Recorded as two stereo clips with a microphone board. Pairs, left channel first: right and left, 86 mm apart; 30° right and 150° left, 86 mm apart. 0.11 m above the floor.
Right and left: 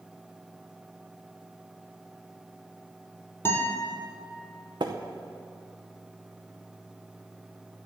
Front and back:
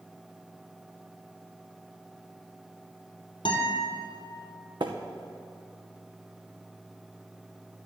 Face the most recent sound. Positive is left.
turn(degrees=120)